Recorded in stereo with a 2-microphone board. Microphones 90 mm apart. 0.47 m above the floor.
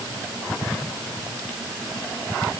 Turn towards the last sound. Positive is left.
No sound to turn to.